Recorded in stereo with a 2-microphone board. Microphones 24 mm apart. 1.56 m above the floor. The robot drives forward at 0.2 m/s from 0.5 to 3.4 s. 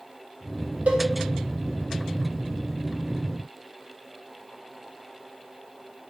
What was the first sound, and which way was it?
A cowbell, 85° right.